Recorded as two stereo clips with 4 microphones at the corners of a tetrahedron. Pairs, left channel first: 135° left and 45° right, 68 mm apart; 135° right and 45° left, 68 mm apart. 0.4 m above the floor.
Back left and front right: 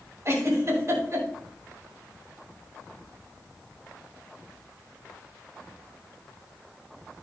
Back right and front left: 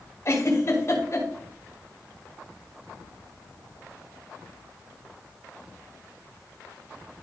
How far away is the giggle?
About 5 m.